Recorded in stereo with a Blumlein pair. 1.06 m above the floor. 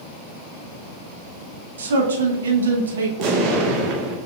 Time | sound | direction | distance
1.8 | a man speaking | 65° right | 0.9 m
3.2 | an explosion | 40° right | 0.8 m